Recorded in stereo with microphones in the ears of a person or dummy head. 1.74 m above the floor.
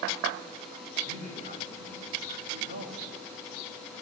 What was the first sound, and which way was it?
A man speaking, 45° right (ahead or behind).